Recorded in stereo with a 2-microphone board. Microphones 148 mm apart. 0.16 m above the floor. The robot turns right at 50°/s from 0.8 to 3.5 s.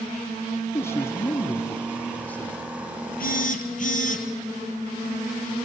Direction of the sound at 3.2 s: 70° left (ahead or behind).